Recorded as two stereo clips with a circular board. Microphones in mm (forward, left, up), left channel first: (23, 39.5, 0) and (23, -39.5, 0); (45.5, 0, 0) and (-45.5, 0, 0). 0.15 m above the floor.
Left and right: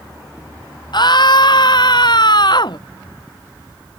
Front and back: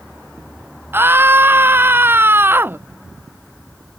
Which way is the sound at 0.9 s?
115° left.